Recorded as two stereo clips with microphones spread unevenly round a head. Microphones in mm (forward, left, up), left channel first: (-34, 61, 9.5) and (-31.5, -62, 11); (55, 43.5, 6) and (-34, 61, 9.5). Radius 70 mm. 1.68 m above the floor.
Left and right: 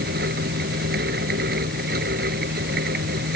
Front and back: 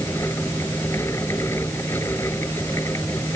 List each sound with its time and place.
0.0 s a fan: 90° right